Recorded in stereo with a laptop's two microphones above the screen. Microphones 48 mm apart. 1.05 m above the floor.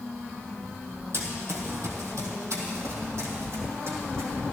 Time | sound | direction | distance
1.1 | running footsteps | 55° right (ahead or behind) | 2.5 m